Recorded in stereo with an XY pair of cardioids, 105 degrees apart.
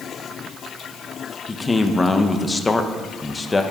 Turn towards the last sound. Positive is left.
turn(degrees=20)